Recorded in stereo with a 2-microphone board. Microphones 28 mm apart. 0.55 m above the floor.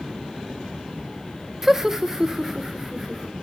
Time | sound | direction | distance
1.6 | laughter | 10° right (ahead or behind) | 0.6 m